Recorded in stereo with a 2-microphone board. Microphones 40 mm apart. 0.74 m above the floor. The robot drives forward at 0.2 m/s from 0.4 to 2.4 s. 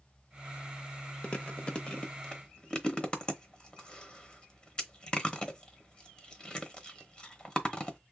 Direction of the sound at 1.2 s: 30° left (ahead or behind).